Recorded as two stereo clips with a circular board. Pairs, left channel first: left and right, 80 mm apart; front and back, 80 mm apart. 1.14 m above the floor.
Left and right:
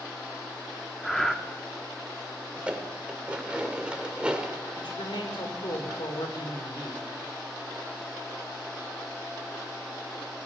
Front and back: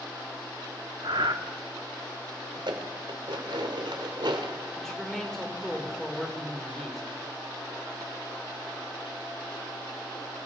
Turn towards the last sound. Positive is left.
turn(degrees=85)